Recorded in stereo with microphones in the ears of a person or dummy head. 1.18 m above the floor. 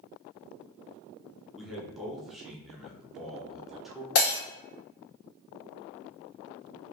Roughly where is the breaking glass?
Left.